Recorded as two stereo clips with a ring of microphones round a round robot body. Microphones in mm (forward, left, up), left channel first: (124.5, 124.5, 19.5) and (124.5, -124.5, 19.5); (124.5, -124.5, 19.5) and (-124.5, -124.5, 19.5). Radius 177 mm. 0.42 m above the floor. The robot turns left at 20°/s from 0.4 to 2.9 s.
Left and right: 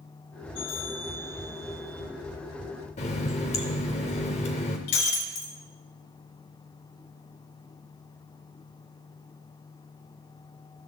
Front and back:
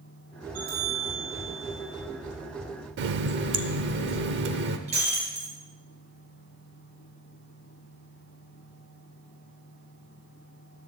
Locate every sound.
0.6 s a bell: straight behind, 7.5 m; by 2.0 s 150° left, 7.5 m
3.0 s a running tap: 150° left, 0.7 m
4.9 s breaking glass: 110° left, 1.6 m